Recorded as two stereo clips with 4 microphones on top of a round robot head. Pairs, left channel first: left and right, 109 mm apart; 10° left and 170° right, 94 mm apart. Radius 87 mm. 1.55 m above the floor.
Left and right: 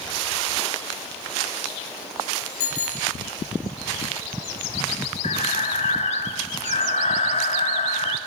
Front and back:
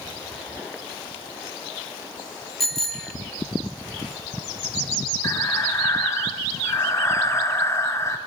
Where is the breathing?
70° left, 1.7 m.